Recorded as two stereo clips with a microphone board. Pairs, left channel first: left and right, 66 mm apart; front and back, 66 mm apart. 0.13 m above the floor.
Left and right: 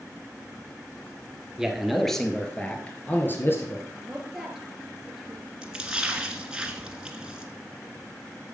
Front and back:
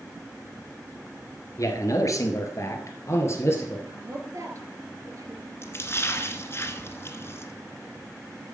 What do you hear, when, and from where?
1.6 s a man speaking: 10° right, 2.0 m; by 3.8 s 45° left, 2.5 m
3.9 s a woman speaking: 175° right, 2.5 m
5.6 s a splash: 20° right, 1.8 m